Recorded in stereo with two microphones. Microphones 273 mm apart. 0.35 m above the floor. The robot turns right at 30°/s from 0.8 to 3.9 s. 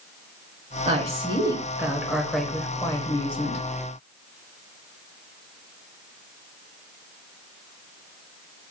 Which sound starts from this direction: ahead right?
A woman speaking, at 0.8 s.